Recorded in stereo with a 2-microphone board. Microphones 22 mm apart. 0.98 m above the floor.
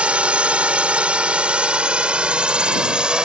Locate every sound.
0.0 s a drone: 70° right (ahead or behind); by 3.2 s 45° right (ahead or behind)